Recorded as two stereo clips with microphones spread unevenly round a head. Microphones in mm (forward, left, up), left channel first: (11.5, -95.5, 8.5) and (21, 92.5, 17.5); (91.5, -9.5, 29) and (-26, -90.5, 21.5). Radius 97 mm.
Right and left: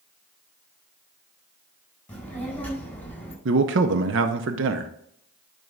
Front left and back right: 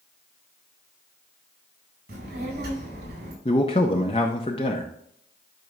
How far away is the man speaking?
About 0.6 m.